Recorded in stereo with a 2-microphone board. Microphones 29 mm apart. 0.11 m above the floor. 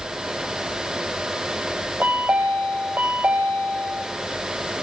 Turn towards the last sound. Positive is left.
turn(degrees=-85)